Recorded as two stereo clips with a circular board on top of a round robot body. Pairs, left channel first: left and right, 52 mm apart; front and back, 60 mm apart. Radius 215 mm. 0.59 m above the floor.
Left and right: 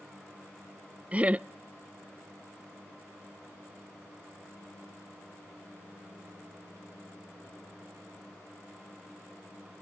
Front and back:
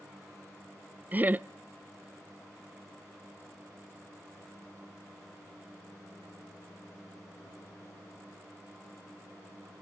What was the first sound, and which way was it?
Laughter, 135° right.